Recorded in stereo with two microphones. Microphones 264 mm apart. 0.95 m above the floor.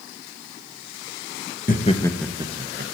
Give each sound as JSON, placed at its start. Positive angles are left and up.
{"t": 1.7, "sound": "laughter", "side_deg": 35, "distance_m": 1.0}